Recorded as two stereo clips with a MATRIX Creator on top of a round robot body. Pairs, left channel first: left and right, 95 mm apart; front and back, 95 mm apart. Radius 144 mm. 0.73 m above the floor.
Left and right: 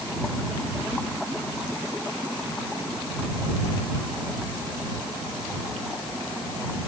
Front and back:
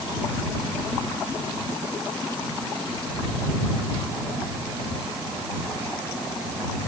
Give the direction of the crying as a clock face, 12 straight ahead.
No crying in this recording.